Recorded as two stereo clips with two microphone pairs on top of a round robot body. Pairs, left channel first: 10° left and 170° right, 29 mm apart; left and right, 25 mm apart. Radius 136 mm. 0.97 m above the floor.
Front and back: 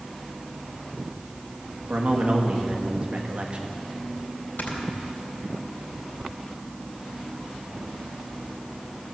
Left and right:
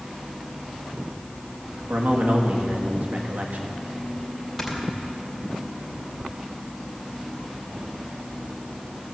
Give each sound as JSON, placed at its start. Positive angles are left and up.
{"t": 1.9, "sound": "a man speaking", "azimuth_deg": -115, "distance_m": 1.7}
{"t": 4.6, "sound": "snoring", "azimuth_deg": 10, "distance_m": 2.5}